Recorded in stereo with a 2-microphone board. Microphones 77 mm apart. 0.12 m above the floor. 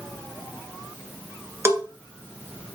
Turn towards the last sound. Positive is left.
turn(degrees=-35)  # may be behind; listen again after turning